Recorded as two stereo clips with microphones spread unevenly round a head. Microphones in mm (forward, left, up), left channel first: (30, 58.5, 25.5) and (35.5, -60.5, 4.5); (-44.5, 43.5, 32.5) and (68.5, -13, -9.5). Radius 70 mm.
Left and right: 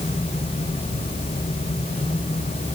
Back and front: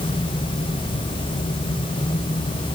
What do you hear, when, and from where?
Only background noise.